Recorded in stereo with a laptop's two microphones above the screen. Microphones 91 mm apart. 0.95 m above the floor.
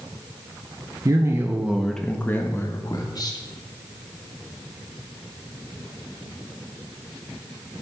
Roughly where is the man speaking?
Right.